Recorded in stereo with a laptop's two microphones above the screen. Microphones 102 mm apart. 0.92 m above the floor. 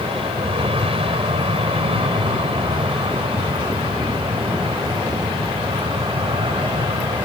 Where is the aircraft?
70° right (ahead or behind); by 7.3 s 65° right (ahead or behind).